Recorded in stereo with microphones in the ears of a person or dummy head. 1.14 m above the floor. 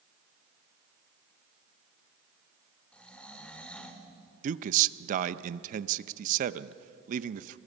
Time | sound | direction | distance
2.9 | snoring | 5° left (ahead or behind) | 1.5 m
4.4 | a man speaking | 50° right (ahead or behind) | 0.7 m